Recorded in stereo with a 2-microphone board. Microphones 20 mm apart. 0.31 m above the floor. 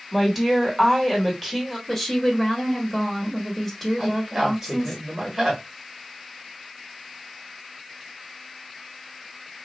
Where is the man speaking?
20° right (ahead or behind), 1.0 m.